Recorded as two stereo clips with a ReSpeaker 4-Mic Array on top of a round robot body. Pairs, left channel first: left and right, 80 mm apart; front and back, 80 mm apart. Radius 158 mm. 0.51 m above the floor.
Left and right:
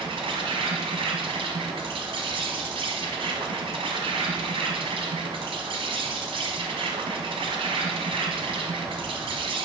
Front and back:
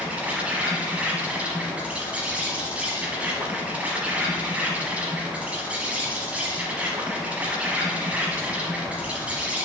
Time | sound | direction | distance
0.0 | an insect | 105° right | 1.1 m